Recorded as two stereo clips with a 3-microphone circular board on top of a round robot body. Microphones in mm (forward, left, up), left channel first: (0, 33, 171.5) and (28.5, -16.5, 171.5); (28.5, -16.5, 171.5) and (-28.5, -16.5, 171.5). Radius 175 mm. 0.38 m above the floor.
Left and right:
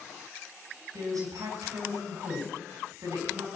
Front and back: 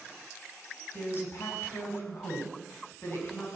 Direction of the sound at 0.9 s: 50° right.